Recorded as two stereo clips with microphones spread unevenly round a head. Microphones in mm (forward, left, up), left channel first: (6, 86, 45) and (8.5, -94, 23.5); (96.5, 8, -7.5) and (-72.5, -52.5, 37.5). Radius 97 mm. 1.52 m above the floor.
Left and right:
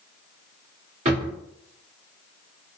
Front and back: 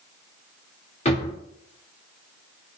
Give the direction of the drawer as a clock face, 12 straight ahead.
1 o'clock.